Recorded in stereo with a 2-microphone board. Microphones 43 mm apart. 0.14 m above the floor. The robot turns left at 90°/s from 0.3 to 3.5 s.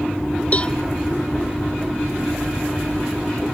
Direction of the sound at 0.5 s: 35° left (ahead or behind).